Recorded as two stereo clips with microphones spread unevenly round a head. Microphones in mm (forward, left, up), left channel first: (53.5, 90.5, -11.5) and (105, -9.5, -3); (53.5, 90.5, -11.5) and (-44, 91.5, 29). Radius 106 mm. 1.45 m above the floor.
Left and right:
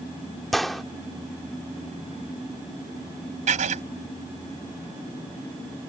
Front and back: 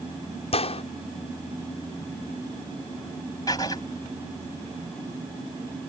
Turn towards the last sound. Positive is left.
turn(degrees=-80)